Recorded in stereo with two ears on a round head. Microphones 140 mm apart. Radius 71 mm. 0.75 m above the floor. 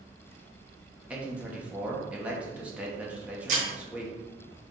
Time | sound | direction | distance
1.1 | a man speaking | 10° right (ahead or behind) | 1.0 m
3.5 | breaking glass | 55° right (ahead or behind) | 2 m